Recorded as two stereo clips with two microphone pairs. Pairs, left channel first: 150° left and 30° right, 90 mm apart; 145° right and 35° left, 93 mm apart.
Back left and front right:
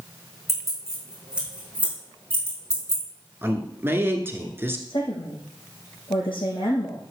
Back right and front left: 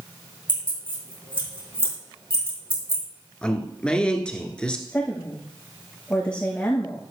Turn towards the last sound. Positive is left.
turn(degrees=135)